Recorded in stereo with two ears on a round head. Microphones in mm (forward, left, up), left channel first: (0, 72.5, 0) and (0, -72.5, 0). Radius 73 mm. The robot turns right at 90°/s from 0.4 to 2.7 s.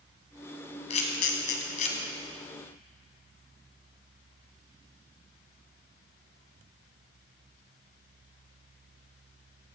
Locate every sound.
0.9 s a camera shutter: 40° left (ahead or behind), 2 m